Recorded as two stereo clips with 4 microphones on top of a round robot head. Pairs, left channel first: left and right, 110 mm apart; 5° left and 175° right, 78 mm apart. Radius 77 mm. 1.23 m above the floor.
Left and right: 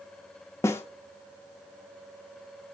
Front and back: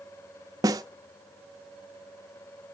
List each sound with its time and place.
0.6 s a snare drum: 160° left, 0.8 m